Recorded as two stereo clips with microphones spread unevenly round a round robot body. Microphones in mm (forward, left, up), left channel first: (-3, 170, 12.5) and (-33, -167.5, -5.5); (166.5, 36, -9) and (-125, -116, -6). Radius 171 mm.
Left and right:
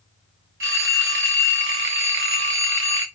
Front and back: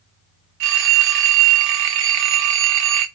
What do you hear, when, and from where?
0.6 s a phone ringing: 145° right, 0.7 m